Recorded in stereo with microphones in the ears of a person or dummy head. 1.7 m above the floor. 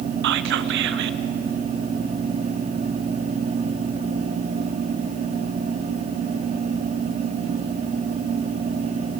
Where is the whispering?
60° right (ahead or behind), 0.9 m.